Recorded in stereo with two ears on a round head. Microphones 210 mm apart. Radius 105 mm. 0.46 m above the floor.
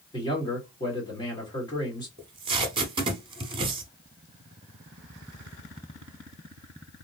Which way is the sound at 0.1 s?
20° left (ahead or behind).